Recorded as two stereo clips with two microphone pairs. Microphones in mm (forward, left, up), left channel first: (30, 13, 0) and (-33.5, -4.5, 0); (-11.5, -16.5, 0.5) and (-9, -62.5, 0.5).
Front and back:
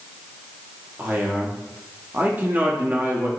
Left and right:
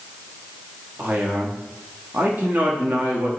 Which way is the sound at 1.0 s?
110° right.